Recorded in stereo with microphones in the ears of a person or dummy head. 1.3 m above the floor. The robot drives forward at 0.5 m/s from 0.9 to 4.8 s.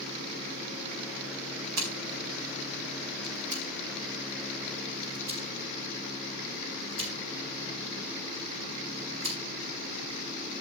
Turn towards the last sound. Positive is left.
turn(degrees=-70)  # may be behind; listen again after turning